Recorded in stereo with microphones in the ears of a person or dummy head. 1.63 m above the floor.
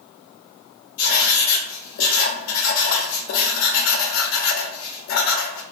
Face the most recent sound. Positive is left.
turn(degrees=65)  # may be behind; listen again after turning